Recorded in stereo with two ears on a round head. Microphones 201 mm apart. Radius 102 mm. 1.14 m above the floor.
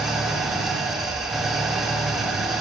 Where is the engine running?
Centre (ahead or behind), 2.5 m.